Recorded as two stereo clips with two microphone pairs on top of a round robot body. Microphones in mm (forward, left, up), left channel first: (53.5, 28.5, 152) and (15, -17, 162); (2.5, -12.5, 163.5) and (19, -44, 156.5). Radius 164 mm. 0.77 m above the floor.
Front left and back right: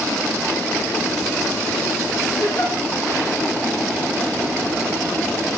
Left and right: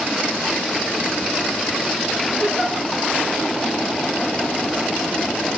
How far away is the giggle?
About 1.9 m.